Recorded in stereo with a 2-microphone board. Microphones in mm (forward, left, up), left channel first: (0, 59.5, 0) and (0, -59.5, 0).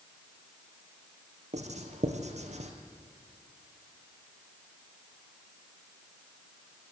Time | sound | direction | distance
1.5 | writing | 70° right (ahead or behind) | 2 m